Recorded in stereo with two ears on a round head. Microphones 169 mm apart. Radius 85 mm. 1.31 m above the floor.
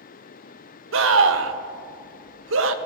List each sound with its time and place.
0.9 s a scream: 70° right (ahead or behind), 1.1 m